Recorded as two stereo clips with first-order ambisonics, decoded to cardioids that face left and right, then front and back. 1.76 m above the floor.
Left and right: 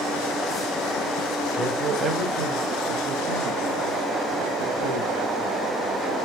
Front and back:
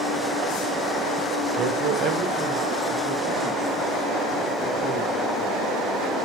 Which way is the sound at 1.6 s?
165° right.